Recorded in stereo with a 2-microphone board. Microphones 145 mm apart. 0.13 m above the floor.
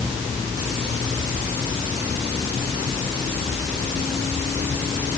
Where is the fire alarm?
No fire alarm in this recording.